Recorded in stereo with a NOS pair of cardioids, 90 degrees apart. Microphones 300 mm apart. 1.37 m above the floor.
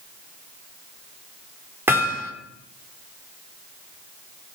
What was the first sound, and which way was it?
Hammering, 5° right.